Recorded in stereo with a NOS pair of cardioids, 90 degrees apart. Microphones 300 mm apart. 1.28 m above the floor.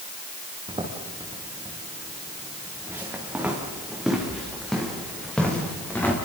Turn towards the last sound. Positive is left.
turn(degrees=5)